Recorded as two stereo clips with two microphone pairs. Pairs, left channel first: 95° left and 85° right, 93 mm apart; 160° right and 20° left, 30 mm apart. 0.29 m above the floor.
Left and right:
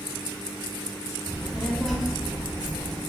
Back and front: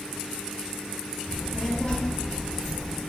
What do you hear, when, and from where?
1.3 s a child speaking: 175° left, 0.7 m